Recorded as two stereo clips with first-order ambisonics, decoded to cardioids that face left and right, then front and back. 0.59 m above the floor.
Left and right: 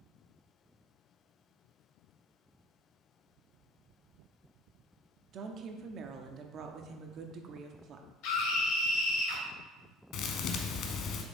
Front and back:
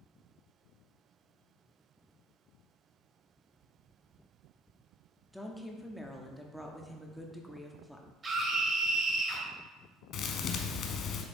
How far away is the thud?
About 0.8 m.